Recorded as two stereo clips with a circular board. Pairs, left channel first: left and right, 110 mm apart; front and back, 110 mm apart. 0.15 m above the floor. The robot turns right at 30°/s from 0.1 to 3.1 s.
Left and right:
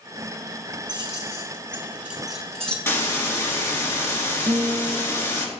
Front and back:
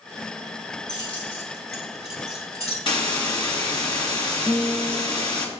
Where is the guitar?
70° right, 0.7 m.